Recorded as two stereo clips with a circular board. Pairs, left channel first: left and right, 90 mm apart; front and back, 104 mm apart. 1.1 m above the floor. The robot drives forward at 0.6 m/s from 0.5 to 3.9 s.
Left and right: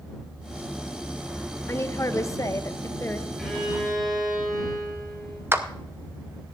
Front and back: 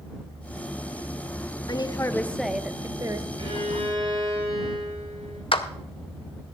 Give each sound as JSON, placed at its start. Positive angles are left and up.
{"t": 1.7, "sound": "a woman speaking", "azimuth_deg": 35, "distance_m": 0.7}
{"t": 3.4, "sound": "a violin", "azimuth_deg": 180, "distance_m": 3.5}
{"t": 5.5, "sound": "a clap", "azimuth_deg": -30, "distance_m": 0.7}